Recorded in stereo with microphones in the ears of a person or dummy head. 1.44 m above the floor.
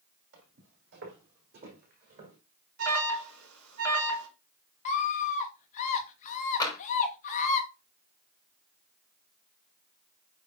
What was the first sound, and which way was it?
Footsteps, 60° right (ahead or behind).